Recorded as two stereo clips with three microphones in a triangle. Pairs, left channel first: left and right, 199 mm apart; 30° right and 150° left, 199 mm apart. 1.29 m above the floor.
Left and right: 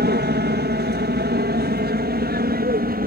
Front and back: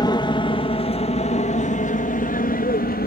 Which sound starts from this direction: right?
An aircraft, at 0.0 s.